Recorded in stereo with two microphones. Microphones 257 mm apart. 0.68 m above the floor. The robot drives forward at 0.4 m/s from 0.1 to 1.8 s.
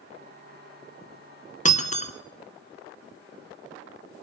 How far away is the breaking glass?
About 1.8 m.